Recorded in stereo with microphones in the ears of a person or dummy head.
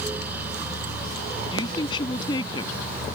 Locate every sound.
1.5 s a woman speaking: 25° left (ahead or behind)